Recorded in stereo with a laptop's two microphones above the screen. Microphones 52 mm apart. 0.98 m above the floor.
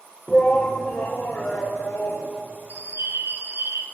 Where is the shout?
15° left (ahead or behind), 0.6 m; by 2.3 s 75° left (ahead or behind), 2.0 m.